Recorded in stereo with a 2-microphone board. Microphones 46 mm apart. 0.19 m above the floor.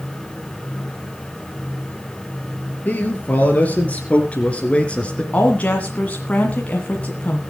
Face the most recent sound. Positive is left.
turn(degrees=30)  # may be behind; listen again after turning